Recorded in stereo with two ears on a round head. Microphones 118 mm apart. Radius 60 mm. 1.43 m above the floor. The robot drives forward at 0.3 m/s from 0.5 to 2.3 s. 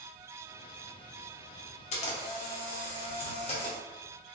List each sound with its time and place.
1.9 s a camera shutter: 60° left (ahead or behind), 0.8 m; by 3.8 s 50° left (ahead or behind), 0.9 m